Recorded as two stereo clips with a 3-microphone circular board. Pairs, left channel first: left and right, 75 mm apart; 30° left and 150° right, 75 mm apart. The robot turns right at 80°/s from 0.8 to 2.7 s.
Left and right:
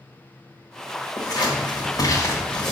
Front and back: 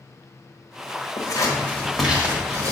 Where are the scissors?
55° left, 1.4 m; by 2.7 s straight behind, 1.4 m.